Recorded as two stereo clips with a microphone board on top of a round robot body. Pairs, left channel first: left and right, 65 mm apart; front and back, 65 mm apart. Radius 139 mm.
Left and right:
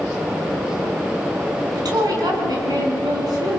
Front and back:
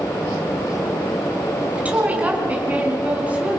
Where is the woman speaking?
110° right, 5 m.